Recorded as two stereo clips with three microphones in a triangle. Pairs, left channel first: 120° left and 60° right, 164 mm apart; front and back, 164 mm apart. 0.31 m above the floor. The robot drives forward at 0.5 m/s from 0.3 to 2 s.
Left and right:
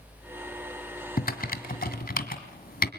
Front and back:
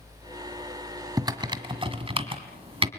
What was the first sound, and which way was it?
Typing on a keyboard, 115° left.